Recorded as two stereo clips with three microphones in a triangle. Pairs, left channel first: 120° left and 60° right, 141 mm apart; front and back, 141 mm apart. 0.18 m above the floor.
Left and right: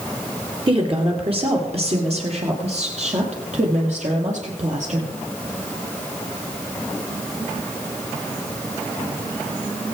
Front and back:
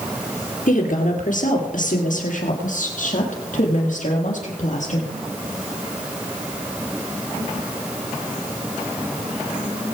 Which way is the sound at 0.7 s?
10° right.